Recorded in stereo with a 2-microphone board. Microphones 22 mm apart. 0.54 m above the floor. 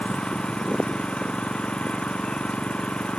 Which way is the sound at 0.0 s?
70° left (ahead or behind).